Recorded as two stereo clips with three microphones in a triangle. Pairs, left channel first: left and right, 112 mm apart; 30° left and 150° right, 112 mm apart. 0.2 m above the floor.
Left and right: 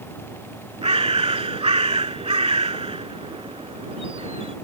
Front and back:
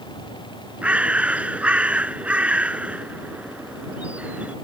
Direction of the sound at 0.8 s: 75° right.